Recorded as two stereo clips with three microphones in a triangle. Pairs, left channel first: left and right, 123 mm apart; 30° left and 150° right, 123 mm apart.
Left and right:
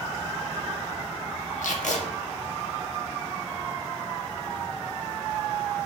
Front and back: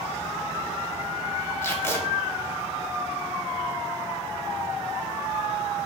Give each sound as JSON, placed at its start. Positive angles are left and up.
{"t": 1.6, "sound": "tape being pulled", "azimuth_deg": 100, "distance_m": 0.6}